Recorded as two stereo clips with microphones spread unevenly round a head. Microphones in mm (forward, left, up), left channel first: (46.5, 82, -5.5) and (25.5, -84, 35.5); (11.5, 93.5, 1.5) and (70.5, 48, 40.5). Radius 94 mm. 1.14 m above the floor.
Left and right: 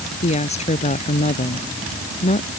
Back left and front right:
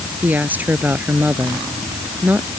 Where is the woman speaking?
30° left.